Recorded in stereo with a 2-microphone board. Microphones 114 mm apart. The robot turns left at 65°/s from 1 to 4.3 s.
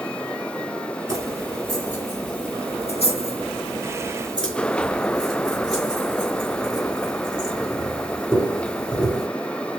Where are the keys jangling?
35° right (ahead or behind), 3 m; by 9.3 s 10° left (ahead or behind), 3 m.